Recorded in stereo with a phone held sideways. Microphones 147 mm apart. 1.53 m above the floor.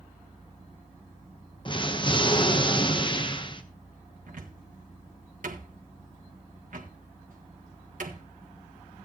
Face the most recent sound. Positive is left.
turn(degrees=-70)  # may be behind; listen again after turning